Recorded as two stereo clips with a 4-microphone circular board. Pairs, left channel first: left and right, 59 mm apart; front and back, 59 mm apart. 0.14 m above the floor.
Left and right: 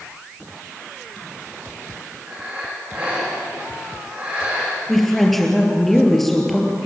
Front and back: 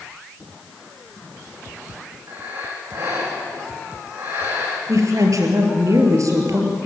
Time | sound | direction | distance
2.3 | breathing | 145° right | 7 m
4.9 | a woman speaking | 175° left | 3.5 m